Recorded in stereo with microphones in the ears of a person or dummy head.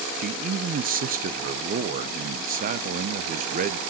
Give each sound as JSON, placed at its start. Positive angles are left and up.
{"t": 0.2, "sound": "a man speaking", "side_deg": -45, "distance_m": 0.6}